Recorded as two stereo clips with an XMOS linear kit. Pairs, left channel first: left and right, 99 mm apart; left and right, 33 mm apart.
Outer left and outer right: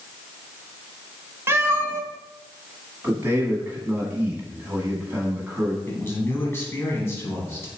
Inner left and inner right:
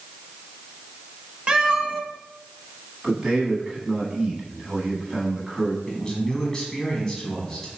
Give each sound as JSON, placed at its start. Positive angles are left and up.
{"t": 1.5, "sound": "a cat meowing", "side_deg": -25, "distance_m": 0.6}
{"t": 3.0, "sound": "a man speaking", "side_deg": -20, "distance_m": 1.1}
{"t": 5.9, "sound": "a man speaking", "side_deg": 25, "distance_m": 1.0}